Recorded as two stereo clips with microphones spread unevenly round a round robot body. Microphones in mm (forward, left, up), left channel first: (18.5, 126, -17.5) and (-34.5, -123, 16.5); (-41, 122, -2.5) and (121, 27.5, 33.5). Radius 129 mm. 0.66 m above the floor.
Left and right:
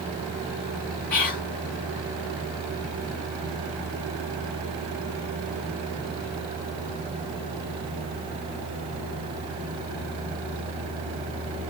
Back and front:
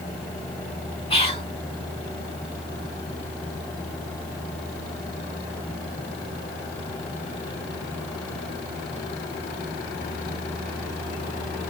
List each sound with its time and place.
1.1 s whispering: 145° left, 1.3 m